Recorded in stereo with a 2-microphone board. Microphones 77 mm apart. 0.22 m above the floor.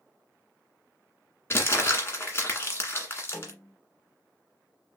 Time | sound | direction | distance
1.5 | crumpling | 35° left (ahead or behind) | 1.6 m
3.3 | a snare drum | 15° left (ahead or behind) | 3.5 m